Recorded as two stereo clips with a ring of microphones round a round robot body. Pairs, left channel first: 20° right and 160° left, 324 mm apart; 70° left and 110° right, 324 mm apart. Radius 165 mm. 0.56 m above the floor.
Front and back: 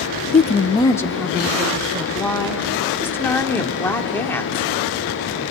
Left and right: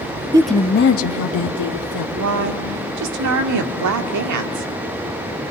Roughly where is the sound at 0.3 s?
Ahead right.